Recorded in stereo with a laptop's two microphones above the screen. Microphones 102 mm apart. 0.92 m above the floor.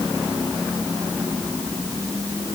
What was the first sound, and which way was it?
Only background noise.